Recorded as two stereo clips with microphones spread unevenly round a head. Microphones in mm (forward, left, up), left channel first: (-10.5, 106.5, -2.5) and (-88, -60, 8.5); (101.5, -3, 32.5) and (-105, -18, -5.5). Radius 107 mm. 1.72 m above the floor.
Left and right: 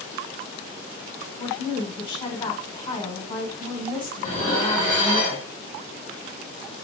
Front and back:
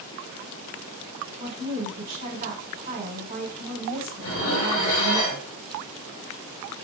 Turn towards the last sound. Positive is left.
turn(degrees=0)